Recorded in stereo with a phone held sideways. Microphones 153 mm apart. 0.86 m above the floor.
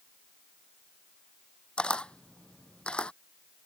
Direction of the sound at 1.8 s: 5° left (ahead or behind).